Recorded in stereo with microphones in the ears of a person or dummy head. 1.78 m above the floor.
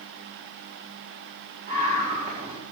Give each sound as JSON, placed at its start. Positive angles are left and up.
{"t": 1.7, "sound": "a scream", "side_deg": -40, "distance_m": 4.5}